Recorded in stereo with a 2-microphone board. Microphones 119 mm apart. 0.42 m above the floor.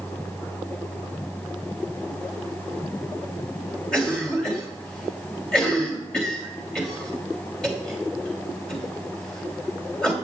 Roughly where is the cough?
Centre.